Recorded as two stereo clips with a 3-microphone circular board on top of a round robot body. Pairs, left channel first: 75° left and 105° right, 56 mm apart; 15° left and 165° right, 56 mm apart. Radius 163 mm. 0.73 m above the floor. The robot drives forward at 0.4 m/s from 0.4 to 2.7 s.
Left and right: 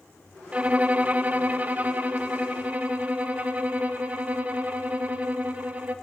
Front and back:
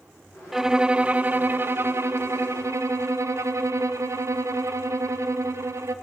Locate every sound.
0.5 s a violin: 90° right, 0.7 m; by 6.0 s 165° right, 1.1 m